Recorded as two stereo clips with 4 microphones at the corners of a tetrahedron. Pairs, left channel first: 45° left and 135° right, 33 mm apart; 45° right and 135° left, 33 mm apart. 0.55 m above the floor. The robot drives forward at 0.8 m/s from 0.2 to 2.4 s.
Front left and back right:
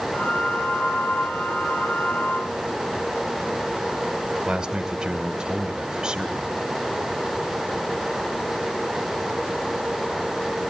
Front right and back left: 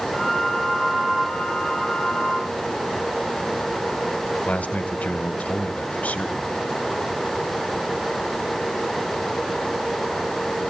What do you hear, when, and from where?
4.5 s a man speaking: 75° right, 2 m